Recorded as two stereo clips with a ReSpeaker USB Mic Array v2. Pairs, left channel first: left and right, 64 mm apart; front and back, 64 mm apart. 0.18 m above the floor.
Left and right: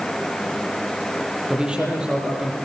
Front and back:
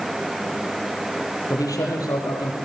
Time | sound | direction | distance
1.5 | a man speaking | 15° right | 6.5 m